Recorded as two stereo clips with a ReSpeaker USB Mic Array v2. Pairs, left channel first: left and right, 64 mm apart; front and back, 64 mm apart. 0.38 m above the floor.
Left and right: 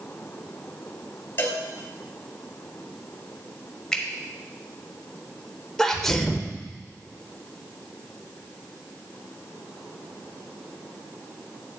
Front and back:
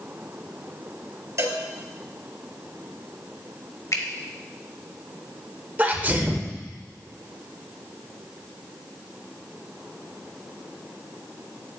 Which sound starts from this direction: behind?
A sneeze, at 5.8 s.